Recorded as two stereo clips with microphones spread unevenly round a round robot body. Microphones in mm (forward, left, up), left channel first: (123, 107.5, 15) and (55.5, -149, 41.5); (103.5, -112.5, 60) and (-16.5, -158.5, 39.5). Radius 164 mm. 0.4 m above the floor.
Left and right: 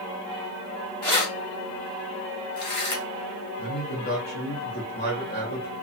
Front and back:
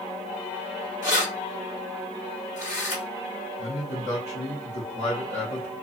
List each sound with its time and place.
1.0 s keys jangling: 5° left, 2.0 m
3.6 s a man speaking: 55° left, 1.1 m